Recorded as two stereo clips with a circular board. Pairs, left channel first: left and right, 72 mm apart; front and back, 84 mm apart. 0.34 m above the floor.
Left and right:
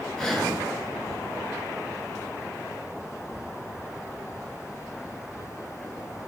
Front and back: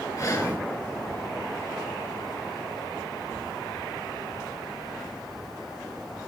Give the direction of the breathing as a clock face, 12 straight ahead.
12 o'clock.